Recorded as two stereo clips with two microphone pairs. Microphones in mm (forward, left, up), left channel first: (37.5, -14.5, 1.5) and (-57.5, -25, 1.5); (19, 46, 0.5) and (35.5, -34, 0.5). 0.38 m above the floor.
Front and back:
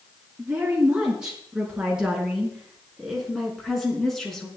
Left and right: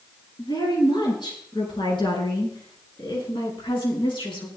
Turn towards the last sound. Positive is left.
turn(degrees=95)